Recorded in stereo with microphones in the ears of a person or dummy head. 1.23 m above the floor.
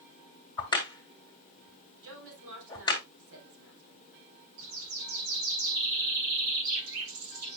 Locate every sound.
0.6 s a crack: 25° left (ahead or behind), 1.7 m
2.0 s a woman speaking: 80° right, 3.5 m
4.6 s a bird: 75° right (ahead or behind), 2 m